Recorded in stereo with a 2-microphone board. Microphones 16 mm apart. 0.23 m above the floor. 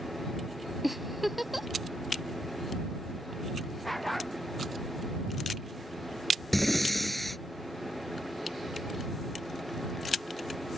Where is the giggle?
10° right (ahead or behind).